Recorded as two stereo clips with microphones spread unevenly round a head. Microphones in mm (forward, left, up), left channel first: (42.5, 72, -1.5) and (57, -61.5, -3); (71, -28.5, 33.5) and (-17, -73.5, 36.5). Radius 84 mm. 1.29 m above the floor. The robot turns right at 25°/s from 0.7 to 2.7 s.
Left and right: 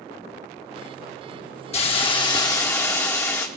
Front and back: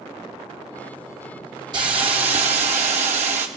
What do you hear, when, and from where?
1.7 s a hiss: 145° left, 1.2 m; by 3.5 s 170° left, 1.2 m